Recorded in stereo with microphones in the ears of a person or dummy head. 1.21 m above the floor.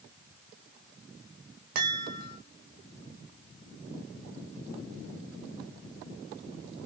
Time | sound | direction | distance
1.8 | a chime | 55° right (ahead or behind) | 2.0 m